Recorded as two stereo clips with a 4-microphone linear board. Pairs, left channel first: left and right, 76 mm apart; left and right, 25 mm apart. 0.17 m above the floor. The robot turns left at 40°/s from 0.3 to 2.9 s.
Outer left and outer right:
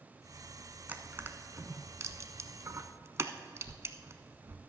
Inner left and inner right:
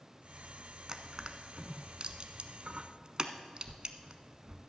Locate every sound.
0.9 s crushing: 25° right (ahead or behind), 0.7 m; by 4.6 s 40° right (ahead or behind), 0.7 m